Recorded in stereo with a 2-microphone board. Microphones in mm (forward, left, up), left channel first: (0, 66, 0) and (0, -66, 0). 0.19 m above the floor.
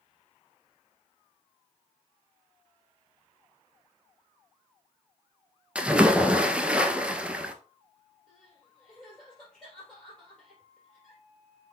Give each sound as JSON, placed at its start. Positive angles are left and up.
{"t": 5.8, "sound": "a splash", "side_deg": -10, "distance_m": 0.7}
{"t": 8.3, "sound": "crying", "side_deg": 5, "distance_m": 3.5}